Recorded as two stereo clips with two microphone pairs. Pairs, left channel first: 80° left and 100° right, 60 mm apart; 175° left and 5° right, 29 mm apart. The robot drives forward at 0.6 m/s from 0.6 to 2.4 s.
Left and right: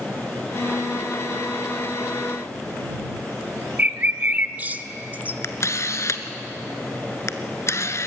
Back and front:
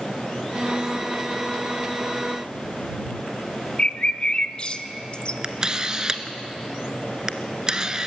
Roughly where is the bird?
Behind right.